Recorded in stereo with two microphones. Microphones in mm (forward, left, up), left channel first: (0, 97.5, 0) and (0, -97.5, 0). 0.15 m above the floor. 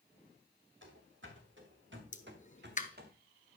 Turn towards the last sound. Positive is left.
turn(degrees=40)  # may be behind; listen again after turning